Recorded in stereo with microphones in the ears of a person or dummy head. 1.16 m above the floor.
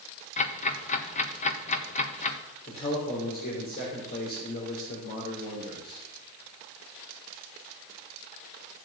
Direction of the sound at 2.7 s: 45° left (ahead or behind).